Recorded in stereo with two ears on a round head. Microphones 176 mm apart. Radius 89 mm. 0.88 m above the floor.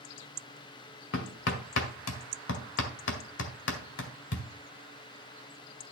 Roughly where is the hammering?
Left.